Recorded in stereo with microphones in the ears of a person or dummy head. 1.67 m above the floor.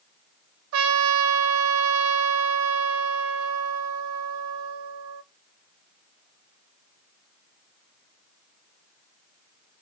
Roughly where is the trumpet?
Right.